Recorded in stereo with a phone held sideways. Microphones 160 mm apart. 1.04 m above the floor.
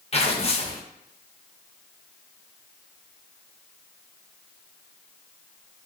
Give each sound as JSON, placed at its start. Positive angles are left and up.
{"t": 0.1, "sound": "tearing paper", "side_deg": 40, "distance_m": 0.5}